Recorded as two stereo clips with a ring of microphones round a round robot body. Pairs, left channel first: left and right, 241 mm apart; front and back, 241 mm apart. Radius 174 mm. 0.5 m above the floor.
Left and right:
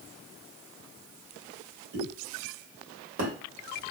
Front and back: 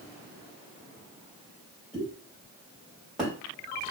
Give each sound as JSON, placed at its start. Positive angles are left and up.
{"t": 1.9, "sound": "a pop", "azimuth_deg": -90, "distance_m": 1.6}